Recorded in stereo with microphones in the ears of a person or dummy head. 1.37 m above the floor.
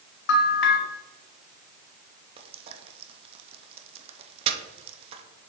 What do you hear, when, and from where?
0.3 s a bell: 65° left (ahead or behind), 1.1 m
2.4 s frying: 30° right (ahead or behind), 0.8 m